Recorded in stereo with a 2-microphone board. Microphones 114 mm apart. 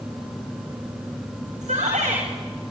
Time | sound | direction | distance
1.6 | a shout | 80° right | 10 m